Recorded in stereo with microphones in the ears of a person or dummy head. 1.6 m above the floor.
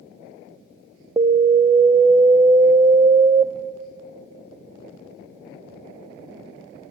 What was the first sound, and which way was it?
An alarm, 20° right (ahead or behind).